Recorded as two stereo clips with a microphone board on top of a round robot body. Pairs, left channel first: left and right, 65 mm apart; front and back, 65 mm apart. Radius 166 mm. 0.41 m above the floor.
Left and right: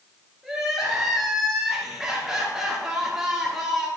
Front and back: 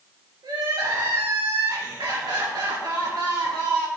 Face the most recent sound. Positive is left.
turn(degrees=180)